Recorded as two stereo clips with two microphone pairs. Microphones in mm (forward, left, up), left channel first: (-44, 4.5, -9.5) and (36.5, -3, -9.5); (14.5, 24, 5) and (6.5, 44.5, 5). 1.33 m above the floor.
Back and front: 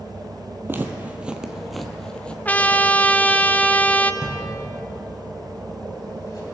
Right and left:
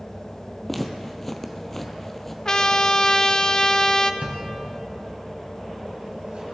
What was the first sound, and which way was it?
Footsteps, 5° right.